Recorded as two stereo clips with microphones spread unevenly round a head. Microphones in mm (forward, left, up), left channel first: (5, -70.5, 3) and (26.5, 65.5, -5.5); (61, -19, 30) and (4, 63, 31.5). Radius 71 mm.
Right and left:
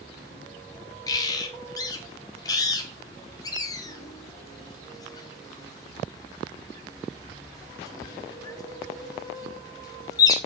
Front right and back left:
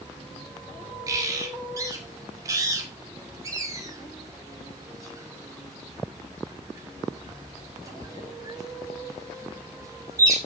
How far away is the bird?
About 1.0 m.